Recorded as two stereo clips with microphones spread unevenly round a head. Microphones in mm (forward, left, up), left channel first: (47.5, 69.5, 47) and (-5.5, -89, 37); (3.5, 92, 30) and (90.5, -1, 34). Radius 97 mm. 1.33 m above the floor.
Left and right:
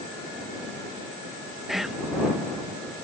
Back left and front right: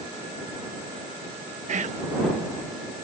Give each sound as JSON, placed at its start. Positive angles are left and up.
{"t": 1.7, "sound": "whispering", "azimuth_deg": -20}